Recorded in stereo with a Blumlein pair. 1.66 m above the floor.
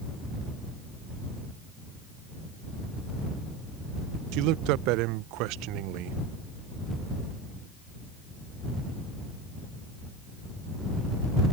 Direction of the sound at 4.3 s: 40° right.